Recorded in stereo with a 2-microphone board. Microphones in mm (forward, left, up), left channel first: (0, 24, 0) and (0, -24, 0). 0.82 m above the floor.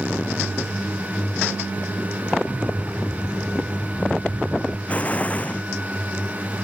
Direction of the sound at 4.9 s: 30° left (ahead or behind).